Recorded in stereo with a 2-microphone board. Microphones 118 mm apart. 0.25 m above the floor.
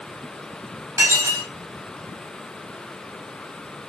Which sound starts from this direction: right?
Dishes clattering, at 1.0 s.